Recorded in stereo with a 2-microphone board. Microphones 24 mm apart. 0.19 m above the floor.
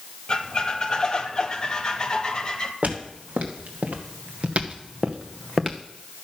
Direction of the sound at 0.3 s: 35° left (ahead or behind).